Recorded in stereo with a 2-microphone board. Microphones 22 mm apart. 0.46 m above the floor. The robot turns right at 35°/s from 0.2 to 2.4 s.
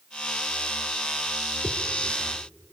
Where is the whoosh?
75° left (ahead or behind), 1.4 m; by 1.8 s 80° left, 1.4 m.